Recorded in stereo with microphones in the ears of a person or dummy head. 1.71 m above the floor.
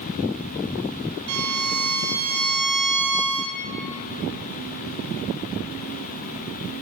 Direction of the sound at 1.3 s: 75° right (ahead or behind).